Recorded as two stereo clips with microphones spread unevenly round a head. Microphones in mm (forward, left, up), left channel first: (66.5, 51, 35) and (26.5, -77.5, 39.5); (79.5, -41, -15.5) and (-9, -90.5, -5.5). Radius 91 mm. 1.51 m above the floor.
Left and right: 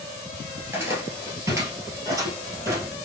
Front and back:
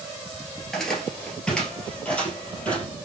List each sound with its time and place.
0.6 s footsteps: 65° right, 1.6 m; by 2.9 s 45° right, 2.5 m